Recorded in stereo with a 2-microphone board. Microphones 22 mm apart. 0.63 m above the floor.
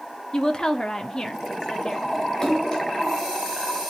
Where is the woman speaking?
35° left (ahead or behind), 1.1 m.